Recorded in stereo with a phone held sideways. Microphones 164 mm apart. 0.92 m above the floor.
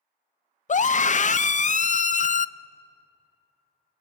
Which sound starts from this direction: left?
A scream, at 0.7 s.